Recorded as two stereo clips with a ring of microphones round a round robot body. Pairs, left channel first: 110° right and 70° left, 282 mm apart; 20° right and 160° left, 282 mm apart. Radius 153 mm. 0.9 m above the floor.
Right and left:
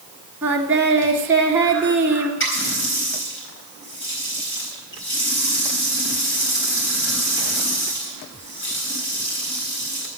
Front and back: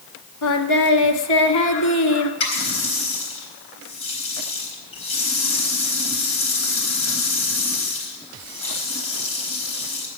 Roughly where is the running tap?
Ahead right.